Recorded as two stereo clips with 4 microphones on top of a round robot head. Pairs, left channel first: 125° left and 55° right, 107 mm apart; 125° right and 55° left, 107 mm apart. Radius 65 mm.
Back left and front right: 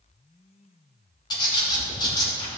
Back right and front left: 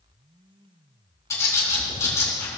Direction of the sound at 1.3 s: 175° left.